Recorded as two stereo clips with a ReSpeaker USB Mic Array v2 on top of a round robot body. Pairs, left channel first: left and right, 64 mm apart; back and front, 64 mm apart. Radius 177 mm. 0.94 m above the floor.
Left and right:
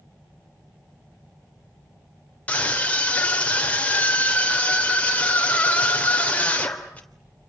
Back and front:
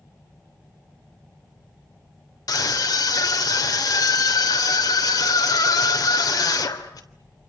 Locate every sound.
2.5 s a scream: 160° left, 3.5 m